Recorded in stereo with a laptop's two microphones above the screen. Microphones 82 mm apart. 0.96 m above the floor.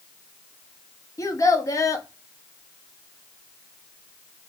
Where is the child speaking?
40° left (ahead or behind), 0.9 m.